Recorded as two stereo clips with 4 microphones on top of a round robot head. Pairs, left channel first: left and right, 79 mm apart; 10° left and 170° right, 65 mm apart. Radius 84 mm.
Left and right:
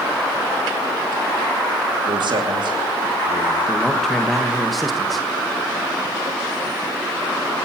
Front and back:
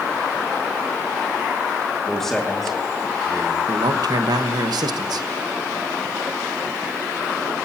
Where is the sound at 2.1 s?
70° right, 2.5 m.